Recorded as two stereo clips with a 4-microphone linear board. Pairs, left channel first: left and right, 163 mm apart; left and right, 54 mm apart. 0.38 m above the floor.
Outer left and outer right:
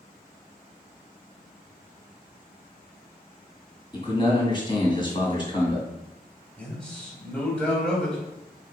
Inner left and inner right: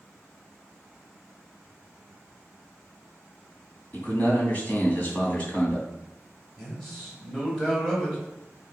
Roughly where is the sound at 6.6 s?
Centre.